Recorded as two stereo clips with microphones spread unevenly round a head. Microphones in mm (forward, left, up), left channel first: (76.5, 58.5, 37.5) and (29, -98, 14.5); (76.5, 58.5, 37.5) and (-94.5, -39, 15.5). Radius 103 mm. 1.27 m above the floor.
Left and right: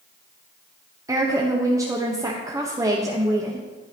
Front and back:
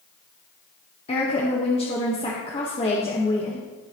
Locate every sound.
1.1 s a woman speaking: 35° right, 1.2 m